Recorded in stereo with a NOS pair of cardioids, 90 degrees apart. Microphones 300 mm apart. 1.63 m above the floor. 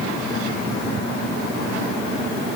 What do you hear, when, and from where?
Only background noise.